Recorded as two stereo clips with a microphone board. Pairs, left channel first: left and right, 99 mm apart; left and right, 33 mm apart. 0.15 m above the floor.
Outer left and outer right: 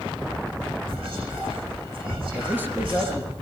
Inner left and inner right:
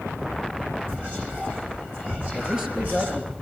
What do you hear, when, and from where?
0.9 s whispering: 65° right (ahead or behind), 9.5 m
2.3 s a man speaking: 20° right (ahead or behind), 3.5 m